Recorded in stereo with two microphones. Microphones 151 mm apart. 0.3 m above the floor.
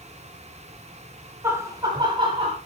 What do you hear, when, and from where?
1.4 s laughter: 15° right (ahead or behind), 1.7 m; by 2.6 s 40° right (ahead or behind), 2.5 m